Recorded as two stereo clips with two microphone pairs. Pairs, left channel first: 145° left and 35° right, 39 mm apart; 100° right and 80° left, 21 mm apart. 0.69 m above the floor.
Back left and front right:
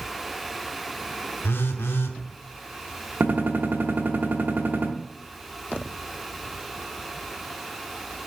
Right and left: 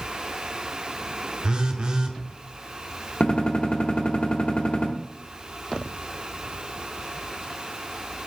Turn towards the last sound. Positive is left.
turn(degrees=-70)